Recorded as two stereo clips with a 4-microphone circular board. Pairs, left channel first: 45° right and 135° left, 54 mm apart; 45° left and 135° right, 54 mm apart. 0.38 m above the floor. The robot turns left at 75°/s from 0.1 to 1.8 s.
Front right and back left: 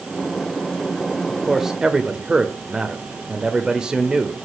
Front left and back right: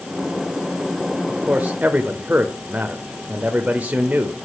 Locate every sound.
1.3 s a man speaking: 120° right, 1.1 m; by 4.3 s 160° right, 1.1 m